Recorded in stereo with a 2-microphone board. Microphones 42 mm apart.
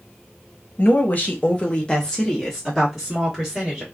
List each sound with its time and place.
0.8 s a woman speaking: 50° left (ahead or behind), 0.8 m; by 3.8 s 10° right (ahead or behind), 1.5 m